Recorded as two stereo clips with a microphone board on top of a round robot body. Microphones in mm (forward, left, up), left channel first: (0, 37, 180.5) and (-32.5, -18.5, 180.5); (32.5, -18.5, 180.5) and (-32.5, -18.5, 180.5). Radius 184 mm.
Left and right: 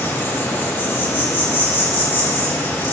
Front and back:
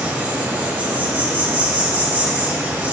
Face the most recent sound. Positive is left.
turn(degrees=120)